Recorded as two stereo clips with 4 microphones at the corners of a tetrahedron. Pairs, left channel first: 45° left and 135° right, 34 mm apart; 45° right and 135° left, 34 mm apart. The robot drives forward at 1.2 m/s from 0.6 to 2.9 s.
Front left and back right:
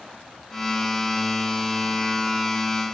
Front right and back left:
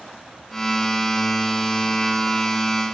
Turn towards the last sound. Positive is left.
No sound to turn to.